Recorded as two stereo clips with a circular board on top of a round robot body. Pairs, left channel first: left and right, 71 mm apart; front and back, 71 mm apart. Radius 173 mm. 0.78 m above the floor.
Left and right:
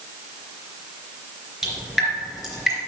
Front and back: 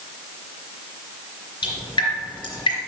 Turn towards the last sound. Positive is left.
turn(degrees=0)